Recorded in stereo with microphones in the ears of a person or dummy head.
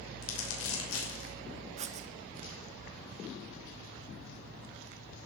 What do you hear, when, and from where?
0.2 s crumpling: 80° left, 5.5 m
1.8 s writing: 40° right (ahead or behind), 0.7 m